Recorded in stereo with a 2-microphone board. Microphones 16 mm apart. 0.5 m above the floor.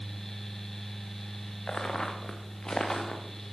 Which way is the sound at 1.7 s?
70° left (ahead or behind).